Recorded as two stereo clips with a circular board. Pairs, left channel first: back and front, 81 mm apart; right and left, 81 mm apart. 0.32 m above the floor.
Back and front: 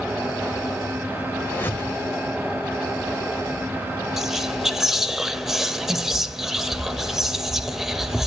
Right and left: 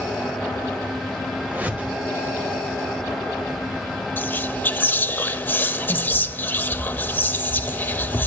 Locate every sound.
1.4 s a whoosh: 140° left, 1.6 m
4.2 s whispering: 75° right, 0.9 m